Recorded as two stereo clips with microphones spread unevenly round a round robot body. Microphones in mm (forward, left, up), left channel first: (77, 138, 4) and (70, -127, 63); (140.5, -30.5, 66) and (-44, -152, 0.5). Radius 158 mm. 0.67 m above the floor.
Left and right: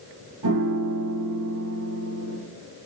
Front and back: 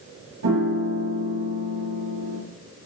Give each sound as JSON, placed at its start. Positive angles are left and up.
{"t": 0.4, "sound": "a piano", "azimuth_deg": -130, "distance_m": 8.0}